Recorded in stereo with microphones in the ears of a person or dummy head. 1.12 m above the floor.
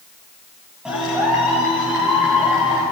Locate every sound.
0.8 s a clap: centre (ahead or behind), 8.5 m